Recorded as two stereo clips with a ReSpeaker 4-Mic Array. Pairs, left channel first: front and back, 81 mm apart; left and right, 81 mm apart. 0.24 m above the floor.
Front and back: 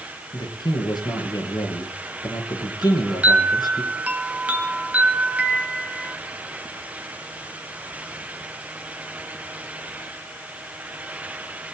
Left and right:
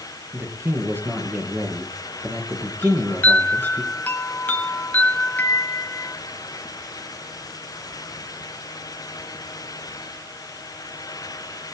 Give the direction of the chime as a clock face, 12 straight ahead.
8 o'clock.